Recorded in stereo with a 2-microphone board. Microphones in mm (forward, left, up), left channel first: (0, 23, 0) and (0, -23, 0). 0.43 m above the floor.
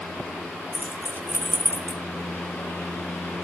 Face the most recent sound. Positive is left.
turn(degrees=65)  # may be behind; listen again after turning